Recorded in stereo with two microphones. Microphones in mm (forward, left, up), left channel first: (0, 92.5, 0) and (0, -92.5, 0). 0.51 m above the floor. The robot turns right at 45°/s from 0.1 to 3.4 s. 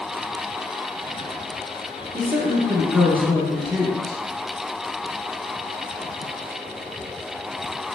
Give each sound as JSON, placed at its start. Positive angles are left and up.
{"t": 2.1, "sound": "a woman speaking", "azimuth_deg": -50, "distance_m": 0.9}